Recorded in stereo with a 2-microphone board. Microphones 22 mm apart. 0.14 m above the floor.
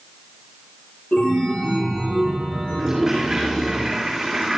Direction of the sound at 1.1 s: 60° left (ahead or behind).